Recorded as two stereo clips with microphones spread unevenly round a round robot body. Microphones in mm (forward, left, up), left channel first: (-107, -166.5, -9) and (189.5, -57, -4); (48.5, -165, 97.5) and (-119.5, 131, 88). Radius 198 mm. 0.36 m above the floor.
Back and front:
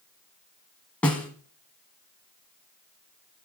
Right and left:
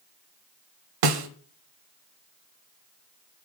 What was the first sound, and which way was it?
A snare drum, 115° left.